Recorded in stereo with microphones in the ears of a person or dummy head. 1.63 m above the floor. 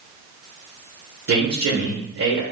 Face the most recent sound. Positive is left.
turn(degrees=-75)  # may be behind; listen again after turning